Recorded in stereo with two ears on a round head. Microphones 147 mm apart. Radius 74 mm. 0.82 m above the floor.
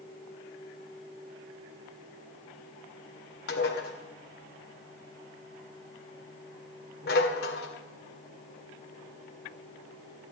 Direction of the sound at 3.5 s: 70° left (ahead or behind).